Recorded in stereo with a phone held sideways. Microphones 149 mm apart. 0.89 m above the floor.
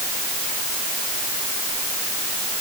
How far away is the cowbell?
I don't hear a cowbell.